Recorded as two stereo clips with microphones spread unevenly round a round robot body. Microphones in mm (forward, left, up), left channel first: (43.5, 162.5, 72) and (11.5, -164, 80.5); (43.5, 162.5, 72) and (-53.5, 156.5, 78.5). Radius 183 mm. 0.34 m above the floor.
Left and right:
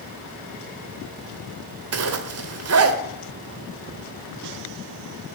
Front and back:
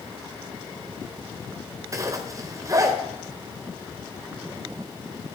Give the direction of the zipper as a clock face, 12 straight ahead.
4 o'clock.